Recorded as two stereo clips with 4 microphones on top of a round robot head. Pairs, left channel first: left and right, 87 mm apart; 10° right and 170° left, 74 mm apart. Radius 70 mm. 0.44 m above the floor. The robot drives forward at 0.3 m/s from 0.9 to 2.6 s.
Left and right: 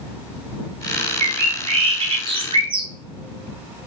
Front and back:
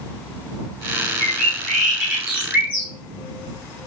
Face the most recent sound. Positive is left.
turn(degrees=-115)